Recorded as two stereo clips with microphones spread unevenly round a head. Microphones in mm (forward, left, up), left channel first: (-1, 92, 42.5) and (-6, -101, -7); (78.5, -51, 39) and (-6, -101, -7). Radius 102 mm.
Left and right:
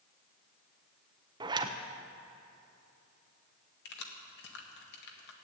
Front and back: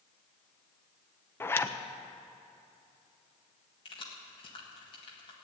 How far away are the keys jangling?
About 1.7 m.